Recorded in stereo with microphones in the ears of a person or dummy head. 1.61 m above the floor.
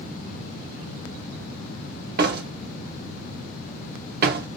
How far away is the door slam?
About 0.8 m.